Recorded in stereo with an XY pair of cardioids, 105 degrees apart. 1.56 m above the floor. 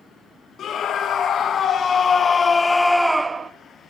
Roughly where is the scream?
Ahead left.